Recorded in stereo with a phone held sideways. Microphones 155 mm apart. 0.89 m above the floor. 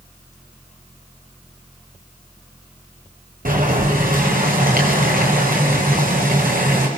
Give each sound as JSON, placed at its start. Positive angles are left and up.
{"t": 3.5, "sound": "boiling", "side_deg": -65, "distance_m": 6.0}